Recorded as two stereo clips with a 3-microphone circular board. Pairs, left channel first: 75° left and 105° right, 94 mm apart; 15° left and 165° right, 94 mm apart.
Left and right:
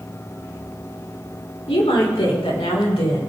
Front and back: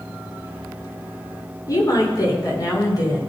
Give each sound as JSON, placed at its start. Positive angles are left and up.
{"t": 1.7, "sound": "a woman speaking", "azimuth_deg": 65, "distance_m": 4.0}